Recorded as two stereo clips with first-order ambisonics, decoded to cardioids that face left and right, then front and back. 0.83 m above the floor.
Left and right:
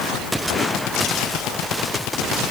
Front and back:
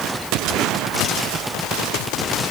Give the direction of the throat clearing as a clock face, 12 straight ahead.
No throat clearing in this recording.